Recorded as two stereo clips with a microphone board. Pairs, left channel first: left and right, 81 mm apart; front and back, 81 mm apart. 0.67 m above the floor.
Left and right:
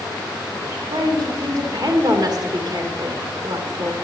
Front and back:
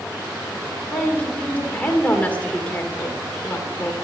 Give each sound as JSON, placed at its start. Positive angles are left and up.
{"t": 0.9, "sound": "a woman speaking", "azimuth_deg": -70, "distance_m": 2.5}